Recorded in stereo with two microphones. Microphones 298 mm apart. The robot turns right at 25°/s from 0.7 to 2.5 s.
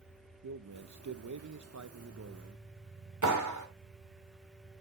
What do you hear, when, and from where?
0.4 s a man speaking: 100° right, 0.7 m; by 2.6 s 55° right, 0.7 m
3.2 s a clap: 85° right, 2.5 m